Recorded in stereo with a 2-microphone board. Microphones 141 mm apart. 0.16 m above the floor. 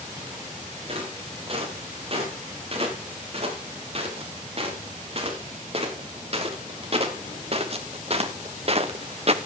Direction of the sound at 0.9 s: 45° right (ahead or behind).